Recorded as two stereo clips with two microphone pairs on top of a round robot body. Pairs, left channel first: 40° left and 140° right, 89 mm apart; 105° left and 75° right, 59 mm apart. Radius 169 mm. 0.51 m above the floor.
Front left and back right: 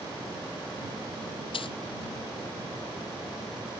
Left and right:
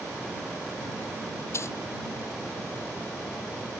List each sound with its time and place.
1.5 s a dropped coin: 60° left